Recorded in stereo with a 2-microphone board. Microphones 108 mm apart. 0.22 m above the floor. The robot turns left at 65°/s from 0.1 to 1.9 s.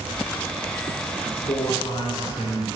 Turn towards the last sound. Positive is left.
turn(degrees=40)  # may be behind; listen again after turning